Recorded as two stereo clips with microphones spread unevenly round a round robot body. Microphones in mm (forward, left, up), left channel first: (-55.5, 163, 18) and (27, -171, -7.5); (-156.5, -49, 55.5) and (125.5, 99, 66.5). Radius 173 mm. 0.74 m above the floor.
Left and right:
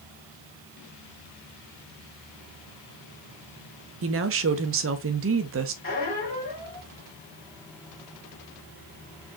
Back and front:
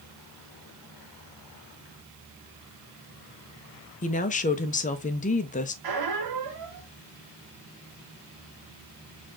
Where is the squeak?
35° left, 1.6 m.